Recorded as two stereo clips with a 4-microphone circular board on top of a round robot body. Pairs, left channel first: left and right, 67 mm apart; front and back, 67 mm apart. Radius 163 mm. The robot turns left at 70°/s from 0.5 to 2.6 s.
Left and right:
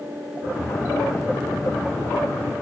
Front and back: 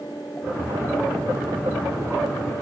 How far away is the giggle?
I don't hear a giggle.